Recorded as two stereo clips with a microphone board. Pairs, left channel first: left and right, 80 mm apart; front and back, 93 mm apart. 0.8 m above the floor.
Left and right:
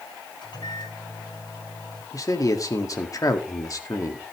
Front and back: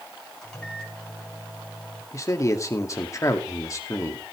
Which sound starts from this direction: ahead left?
A man speaking, at 2.1 s.